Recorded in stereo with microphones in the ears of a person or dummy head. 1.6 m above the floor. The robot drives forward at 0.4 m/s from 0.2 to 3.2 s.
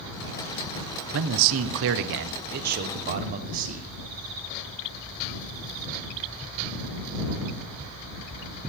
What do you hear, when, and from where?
1.1 s a man speaking: 70° right (ahead or behind), 0.7 m; by 3.9 s 40° right (ahead or behind), 1.0 m